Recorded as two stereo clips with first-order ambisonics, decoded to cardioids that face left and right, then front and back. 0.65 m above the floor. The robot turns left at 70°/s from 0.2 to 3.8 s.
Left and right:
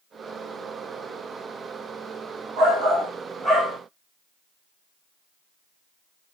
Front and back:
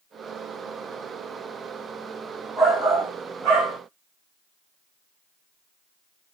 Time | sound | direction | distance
2.6 | a shout | 120° right | 1.4 m